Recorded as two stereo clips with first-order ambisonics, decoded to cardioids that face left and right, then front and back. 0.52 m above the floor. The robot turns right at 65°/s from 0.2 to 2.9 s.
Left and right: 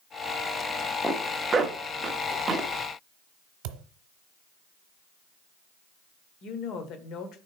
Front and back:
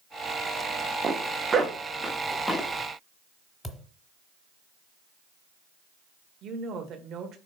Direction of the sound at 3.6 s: 85° right.